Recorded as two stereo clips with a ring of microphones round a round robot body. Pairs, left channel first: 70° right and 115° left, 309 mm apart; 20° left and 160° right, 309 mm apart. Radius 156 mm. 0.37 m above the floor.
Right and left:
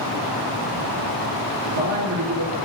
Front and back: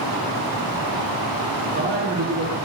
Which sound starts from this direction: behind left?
A man speaking, at 1.6 s.